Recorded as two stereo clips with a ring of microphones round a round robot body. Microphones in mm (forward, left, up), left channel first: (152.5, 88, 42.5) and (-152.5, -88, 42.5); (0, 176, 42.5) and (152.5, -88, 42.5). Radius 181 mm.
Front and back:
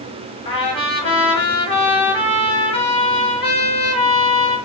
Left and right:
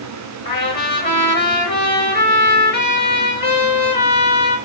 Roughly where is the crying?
No crying in this recording.